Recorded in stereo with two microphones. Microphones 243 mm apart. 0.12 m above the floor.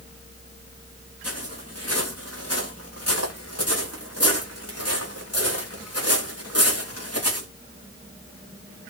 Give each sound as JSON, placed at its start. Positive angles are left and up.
{"t": 1.2, "sound": "footsteps", "side_deg": 85, "distance_m": 9.5}